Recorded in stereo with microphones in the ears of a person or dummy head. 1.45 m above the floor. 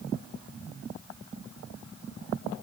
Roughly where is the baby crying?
No baby crying in this recording.